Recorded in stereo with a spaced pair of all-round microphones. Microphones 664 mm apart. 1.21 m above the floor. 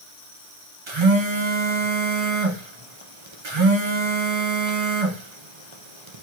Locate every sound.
0.9 s a phone buzzing: 45° right (ahead or behind), 0.8 m